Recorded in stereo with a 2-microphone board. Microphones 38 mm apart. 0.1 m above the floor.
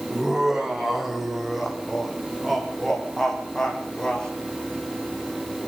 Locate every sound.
0.1 s laughter: 10° right (ahead or behind), 6 m; by 4.3 s 15° left (ahead or behind), 6.5 m